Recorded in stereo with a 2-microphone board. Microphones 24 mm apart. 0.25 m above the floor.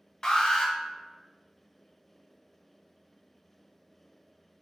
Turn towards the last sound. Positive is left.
turn(degrees=35)  # may be behind; listen again after turning